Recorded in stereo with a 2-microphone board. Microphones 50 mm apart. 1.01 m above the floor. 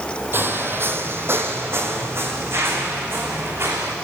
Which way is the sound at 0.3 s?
45° right (ahead or behind).